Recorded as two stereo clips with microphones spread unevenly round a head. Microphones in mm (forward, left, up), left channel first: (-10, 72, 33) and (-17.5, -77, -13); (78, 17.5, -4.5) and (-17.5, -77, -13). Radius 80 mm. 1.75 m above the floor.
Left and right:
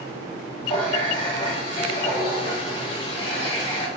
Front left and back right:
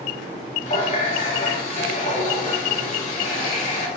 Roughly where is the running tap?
Ahead left.